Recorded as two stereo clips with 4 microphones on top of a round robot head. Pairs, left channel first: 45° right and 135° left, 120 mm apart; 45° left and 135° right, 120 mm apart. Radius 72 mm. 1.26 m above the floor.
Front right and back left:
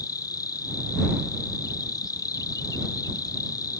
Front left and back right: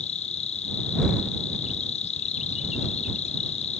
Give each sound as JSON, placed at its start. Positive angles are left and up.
{"t": 0.0, "sound": "an insect", "azimuth_deg": 15}